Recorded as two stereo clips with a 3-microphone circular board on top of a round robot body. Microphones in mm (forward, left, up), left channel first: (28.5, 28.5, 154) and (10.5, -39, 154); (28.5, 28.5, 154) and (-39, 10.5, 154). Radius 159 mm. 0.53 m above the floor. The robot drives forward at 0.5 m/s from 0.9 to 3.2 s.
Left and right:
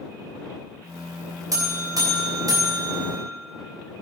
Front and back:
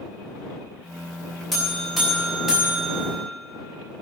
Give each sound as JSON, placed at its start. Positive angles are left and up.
{"t": 1.5, "sound": "a buzzer", "azimuth_deg": -75, "distance_m": 3.5}